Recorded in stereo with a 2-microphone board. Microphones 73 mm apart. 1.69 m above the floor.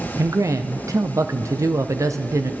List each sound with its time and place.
0.2 s a man speaking: 45° right (ahead or behind), 0.7 m